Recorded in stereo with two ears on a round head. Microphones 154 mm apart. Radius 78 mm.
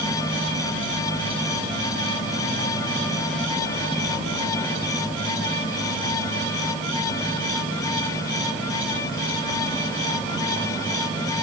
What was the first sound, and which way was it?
Only background noise.